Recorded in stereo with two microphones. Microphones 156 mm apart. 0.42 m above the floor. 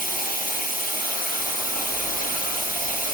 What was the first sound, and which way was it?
Running water, 65° left (ahead or behind).